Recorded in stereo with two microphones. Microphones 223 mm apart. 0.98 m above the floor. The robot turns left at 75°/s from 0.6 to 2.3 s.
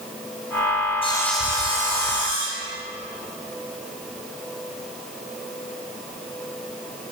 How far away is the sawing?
About 6 m.